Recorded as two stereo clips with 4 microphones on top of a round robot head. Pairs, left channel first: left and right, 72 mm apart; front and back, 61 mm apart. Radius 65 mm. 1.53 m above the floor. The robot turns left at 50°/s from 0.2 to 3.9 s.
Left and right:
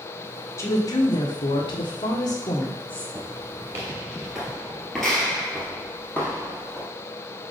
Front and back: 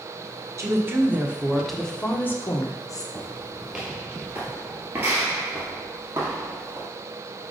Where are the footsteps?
50° right, 1.6 m; by 6.9 s 140° left, 2 m.